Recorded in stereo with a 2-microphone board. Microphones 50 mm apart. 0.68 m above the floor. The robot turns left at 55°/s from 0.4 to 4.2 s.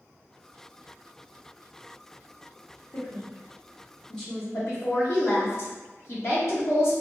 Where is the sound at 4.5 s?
60° left (ahead or behind), 1.1 m.